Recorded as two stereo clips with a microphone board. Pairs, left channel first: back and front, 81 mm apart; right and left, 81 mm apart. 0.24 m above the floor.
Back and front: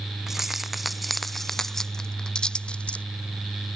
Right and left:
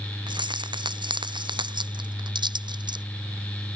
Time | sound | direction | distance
0.3 | keys jangling | 85° left | ?